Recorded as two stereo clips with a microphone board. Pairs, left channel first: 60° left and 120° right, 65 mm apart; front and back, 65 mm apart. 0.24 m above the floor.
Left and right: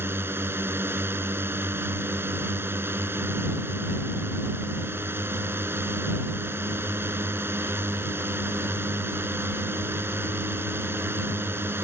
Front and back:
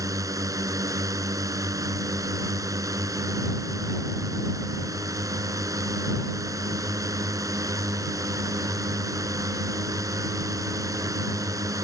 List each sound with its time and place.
0.0 s a drone: 170° right